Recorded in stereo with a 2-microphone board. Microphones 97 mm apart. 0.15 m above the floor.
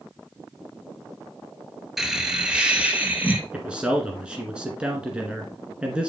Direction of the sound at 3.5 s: 10° right (ahead or behind).